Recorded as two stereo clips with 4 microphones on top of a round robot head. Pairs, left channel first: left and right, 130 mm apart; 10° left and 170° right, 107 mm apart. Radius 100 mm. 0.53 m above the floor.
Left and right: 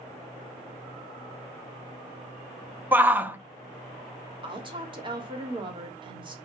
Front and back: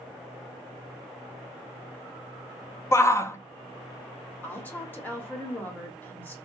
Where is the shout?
25° right, 0.7 m.